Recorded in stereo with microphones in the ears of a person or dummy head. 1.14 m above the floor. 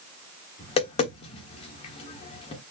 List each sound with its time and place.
0.6 s tapping: 35° left (ahead or behind), 1.1 m